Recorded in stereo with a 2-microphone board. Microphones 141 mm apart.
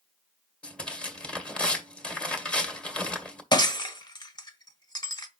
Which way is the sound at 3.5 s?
30° left (ahead or behind).